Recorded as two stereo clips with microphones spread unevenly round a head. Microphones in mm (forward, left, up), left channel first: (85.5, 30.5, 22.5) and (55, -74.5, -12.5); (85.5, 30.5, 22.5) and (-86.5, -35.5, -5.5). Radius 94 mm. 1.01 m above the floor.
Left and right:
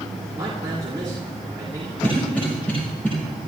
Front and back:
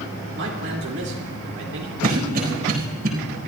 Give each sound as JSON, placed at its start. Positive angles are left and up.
{"t": 0.3, "sound": "a man speaking", "azimuth_deg": -175, "distance_m": 2.5}
{"t": 2.0, "sound": "a cough", "azimuth_deg": 160, "distance_m": 4.5}